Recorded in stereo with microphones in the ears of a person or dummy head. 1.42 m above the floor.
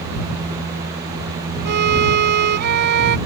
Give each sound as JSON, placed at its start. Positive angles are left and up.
{"t": 1.6, "sound": "a violin", "side_deg": -55}